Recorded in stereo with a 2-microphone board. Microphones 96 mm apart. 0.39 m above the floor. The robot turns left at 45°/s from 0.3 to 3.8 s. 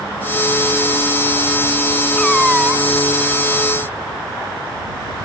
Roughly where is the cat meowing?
Ahead.